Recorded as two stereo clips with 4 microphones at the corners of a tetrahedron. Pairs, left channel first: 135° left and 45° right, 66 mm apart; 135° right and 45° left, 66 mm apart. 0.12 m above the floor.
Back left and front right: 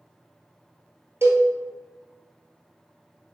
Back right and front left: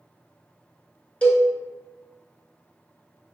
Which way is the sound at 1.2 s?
70° right.